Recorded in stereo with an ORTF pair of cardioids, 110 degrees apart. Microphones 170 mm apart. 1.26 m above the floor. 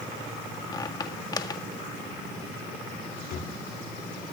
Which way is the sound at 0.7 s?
25° left.